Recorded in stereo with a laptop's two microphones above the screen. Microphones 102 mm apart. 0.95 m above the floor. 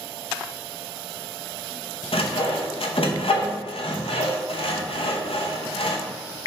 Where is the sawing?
65° left (ahead or behind), 0.5 m.